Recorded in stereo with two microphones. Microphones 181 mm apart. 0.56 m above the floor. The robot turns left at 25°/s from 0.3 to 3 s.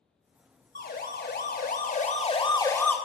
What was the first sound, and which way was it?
A siren, 55° left (ahead or behind).